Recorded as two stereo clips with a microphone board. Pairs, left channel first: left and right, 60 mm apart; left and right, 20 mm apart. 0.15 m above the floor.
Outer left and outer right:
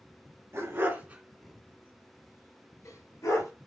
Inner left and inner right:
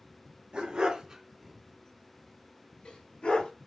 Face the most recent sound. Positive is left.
turn(degrees=65)  # may be behind; listen again after turning